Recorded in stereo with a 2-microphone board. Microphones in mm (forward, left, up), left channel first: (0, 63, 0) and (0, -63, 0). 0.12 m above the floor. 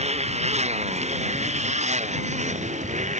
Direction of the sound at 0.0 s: 60° right (ahead or behind).